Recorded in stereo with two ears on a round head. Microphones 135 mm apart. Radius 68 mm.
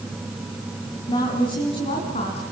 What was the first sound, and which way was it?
A woman speaking, 30° left (ahead or behind).